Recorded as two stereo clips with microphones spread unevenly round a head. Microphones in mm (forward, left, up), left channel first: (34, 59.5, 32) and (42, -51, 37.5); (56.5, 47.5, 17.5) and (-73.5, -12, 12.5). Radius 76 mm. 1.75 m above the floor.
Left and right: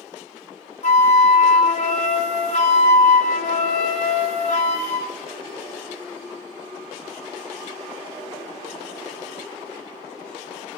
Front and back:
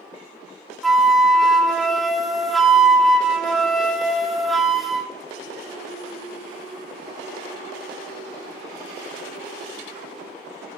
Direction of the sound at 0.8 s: 115° left.